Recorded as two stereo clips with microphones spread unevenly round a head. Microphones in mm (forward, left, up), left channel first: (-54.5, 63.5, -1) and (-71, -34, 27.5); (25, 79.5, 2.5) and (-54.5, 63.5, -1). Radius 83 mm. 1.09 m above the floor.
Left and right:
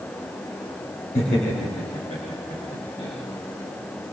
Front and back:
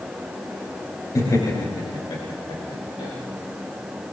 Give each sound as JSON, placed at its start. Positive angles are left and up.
{"t": 1.1, "sound": "laughter", "azimuth_deg": 55, "distance_m": 4.0}